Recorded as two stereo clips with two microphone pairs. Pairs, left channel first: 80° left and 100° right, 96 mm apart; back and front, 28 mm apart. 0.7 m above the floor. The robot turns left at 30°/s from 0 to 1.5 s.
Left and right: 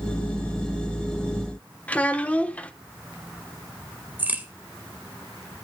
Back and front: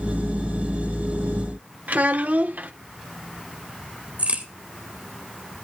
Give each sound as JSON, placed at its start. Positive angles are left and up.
{"t": 1.9, "sound": "a child speaking", "azimuth_deg": 5, "distance_m": 1.1}
{"t": 4.2, "sound": "a crack", "azimuth_deg": -30, "distance_m": 2.0}